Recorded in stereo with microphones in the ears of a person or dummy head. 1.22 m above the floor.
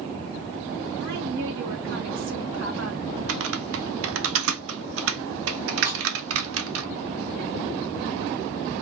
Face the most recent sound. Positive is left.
turn(degrees=-60)  # may be behind; listen again after turning